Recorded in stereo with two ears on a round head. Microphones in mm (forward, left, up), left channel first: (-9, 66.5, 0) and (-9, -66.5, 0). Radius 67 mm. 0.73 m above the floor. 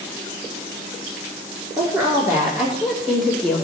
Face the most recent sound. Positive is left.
turn(degrees=10)  # may be behind; listen again after turning